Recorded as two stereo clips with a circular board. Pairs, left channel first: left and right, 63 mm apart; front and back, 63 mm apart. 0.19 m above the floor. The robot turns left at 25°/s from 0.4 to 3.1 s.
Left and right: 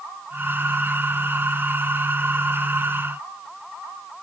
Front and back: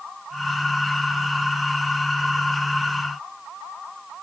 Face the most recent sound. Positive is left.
No sound to turn to.